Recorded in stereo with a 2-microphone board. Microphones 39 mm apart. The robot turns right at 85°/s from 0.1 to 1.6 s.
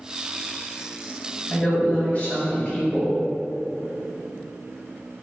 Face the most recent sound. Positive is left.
turn(degrees=45)  # may be behind; listen again after turning